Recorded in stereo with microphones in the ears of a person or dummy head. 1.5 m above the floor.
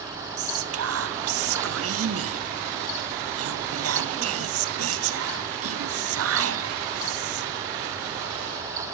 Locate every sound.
0.4 s whispering: 70° right (ahead or behind), 0.7 m